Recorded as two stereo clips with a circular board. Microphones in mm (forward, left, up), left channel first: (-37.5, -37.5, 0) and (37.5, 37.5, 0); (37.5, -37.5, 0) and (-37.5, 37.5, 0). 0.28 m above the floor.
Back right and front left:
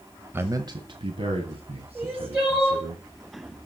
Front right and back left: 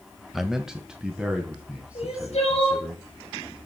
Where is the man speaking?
50° left, 0.9 m; by 3.0 s 55° left, 3.5 m.